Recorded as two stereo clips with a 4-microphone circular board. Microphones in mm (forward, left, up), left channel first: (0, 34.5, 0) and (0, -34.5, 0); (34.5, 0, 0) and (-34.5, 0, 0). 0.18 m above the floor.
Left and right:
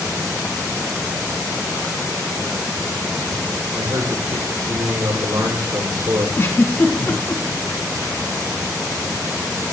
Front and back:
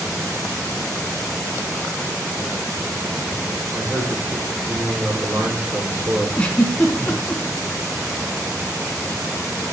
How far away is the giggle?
About 2 m.